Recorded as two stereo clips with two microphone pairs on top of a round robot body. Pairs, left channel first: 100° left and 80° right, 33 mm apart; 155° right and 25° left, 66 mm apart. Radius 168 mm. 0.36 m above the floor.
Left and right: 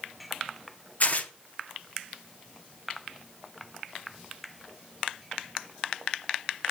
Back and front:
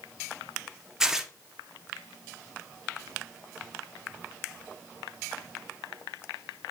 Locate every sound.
1.0 s tearing paper: 100° left, 1.3 m